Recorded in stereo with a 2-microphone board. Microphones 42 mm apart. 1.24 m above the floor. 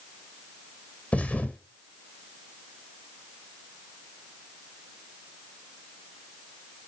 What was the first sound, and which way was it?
A thud, 35° left (ahead or behind).